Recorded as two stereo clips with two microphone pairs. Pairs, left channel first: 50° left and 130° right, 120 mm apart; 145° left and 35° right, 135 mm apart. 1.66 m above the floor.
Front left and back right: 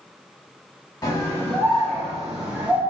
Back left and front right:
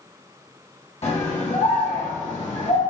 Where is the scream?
110° left, 1.2 m; by 2.8 s 160° left, 1.2 m.